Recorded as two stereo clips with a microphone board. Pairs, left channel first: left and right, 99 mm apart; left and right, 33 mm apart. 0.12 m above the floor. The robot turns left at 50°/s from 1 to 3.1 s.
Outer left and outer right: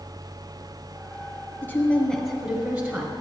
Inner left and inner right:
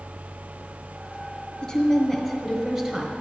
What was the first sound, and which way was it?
A woman speaking, 20° left (ahead or behind).